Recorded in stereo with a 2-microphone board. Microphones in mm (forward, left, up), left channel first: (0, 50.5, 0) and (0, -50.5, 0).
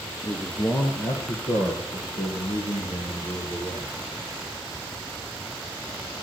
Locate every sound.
0.2 s a man speaking: 30° left (ahead or behind), 1.5 m; by 3.9 s 65° left (ahead or behind), 5 m